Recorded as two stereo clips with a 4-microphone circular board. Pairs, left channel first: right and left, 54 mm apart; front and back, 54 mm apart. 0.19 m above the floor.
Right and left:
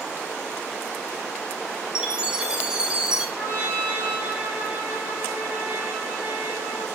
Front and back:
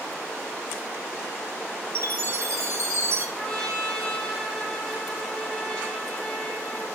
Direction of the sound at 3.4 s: 65° left.